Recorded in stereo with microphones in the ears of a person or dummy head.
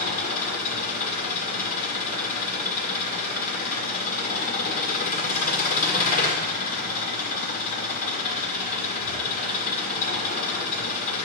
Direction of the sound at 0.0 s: 45° left (ahead or behind).